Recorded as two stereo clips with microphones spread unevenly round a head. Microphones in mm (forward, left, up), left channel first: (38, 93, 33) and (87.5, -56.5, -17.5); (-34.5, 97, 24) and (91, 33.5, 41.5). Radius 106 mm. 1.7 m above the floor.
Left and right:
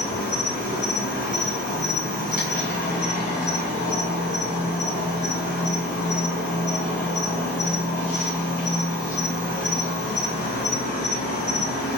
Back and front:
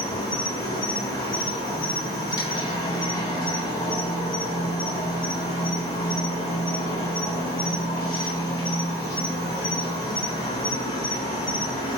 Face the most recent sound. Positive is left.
turn(degrees=90)